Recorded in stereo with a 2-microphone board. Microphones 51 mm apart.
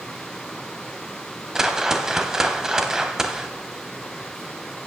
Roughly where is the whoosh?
Centre.